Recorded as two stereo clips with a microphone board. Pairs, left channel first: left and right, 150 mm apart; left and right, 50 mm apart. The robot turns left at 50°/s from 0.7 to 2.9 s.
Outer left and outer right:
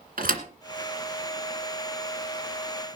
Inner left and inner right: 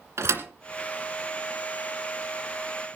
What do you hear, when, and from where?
0.2 s a thud: 75° right (ahead or behind), 2 m